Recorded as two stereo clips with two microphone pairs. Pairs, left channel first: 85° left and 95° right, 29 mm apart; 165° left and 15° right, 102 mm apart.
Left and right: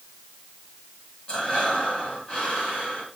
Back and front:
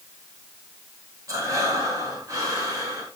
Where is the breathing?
35° left, 2.5 m.